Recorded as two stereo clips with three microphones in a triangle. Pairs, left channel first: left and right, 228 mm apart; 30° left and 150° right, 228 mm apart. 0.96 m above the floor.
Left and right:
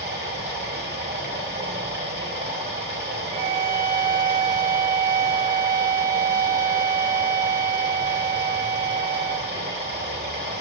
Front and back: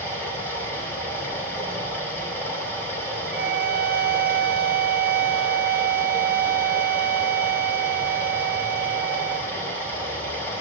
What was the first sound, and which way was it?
Running water, 50° right.